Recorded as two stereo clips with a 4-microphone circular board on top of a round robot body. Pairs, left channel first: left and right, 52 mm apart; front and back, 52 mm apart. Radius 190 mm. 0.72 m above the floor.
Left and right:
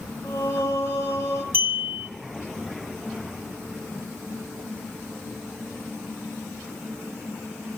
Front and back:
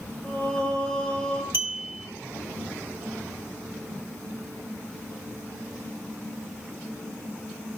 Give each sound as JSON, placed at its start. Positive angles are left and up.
{"t": 0.2, "sound": "singing", "azimuth_deg": 65, "distance_m": 1.4}
{"t": 1.5, "sound": "a clink", "azimuth_deg": -135, "distance_m": 1.1}